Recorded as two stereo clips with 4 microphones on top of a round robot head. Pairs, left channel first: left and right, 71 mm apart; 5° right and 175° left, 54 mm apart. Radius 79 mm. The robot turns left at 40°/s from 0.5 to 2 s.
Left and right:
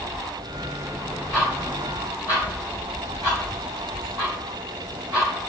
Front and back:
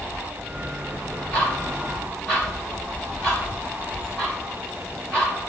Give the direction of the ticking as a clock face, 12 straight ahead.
2 o'clock.